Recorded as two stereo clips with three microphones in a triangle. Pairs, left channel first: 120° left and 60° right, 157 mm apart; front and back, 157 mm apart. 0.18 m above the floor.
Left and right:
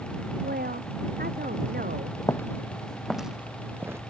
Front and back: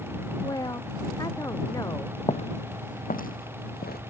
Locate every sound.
0.4 s a woman speaking: 65° right
2.2 s footsteps: 50° left; by 4.0 s 15° left